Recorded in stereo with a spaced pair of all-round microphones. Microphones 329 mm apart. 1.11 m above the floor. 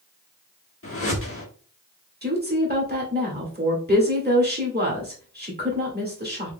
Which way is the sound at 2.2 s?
30° right (ahead or behind).